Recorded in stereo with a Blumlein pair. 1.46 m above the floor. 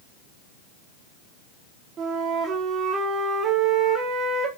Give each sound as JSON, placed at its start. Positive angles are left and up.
{"t": 2.0, "sound": "a flute", "azimuth_deg": -25, "distance_m": 1.3}